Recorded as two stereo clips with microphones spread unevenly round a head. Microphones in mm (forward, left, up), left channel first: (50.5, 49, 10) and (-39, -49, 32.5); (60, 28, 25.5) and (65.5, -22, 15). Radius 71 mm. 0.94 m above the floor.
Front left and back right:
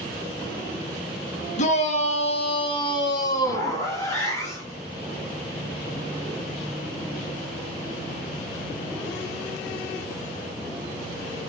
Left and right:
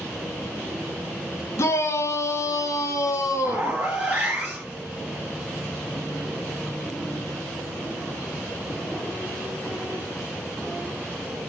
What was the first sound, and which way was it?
A shout, 65° left.